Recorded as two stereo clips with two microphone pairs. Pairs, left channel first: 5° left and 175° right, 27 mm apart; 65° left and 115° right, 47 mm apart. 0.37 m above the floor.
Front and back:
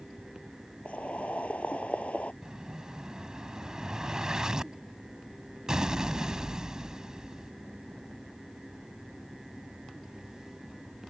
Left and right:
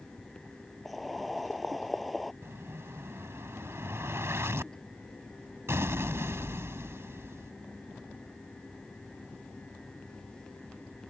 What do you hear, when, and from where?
0.8 s boiling: 25° right
2.4 s an explosion: 115° right